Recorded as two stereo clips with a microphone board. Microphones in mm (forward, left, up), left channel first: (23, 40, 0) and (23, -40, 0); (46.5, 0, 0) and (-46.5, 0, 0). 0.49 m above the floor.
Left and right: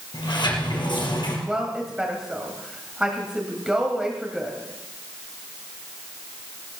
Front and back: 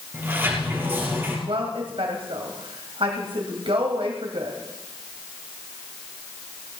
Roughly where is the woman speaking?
Behind.